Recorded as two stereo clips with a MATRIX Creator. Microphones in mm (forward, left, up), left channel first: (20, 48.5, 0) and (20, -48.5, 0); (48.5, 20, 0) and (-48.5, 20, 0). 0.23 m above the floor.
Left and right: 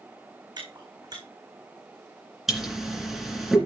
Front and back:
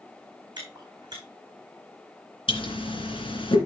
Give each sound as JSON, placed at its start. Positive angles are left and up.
{"t": 0.6, "sound": "chewing", "azimuth_deg": -135, "distance_m": 3.5}
{"t": 2.5, "sound": "a pop", "azimuth_deg": 0, "distance_m": 2.5}